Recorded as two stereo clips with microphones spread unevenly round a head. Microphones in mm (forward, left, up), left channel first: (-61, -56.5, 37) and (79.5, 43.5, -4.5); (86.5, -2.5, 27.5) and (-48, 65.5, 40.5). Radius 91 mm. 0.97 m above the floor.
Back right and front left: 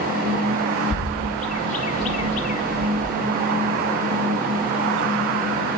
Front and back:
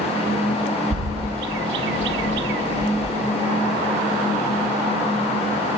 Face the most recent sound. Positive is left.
turn(degrees=160)